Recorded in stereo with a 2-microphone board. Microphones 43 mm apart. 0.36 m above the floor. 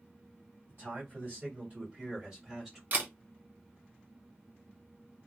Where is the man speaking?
45° right (ahead or behind), 2 m; by 2.8 s 5° right (ahead or behind), 1.9 m.